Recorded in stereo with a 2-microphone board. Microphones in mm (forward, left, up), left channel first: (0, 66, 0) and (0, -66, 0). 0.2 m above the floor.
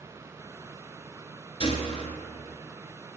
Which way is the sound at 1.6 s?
40° left (ahead or behind).